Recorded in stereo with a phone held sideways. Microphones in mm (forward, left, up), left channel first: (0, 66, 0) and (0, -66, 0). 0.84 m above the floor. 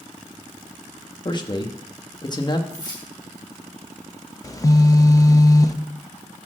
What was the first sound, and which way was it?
A man speaking, 35° left (ahead or behind).